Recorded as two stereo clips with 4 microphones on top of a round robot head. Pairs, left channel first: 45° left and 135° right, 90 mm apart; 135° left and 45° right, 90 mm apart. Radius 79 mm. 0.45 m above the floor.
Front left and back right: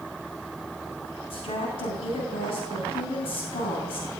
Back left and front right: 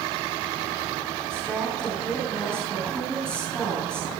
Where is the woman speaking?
55° left, 4 m.